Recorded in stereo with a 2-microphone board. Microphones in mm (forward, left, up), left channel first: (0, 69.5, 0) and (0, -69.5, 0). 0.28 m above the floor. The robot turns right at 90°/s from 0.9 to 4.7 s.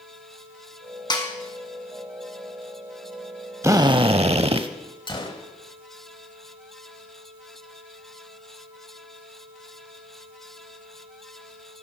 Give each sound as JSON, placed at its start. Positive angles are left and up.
{"t": 1.1, "sound": "a snare drum", "side_deg": 35, "distance_m": 1.7}
{"t": 3.6, "sound": "a drill", "azimuth_deg": -150, "distance_m": 0.6}
{"t": 5.1, "sound": "a gunshot", "side_deg": 35, "distance_m": 1.1}